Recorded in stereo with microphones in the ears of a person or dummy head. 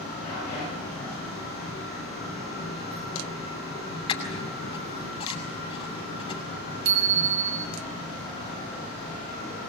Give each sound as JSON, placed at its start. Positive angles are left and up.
{"t": 4.1, "sound": "a squeak", "side_deg": 25, "distance_m": 6.0}
{"t": 6.8, "sound": "a bicycle bell", "side_deg": -75, "distance_m": 5.0}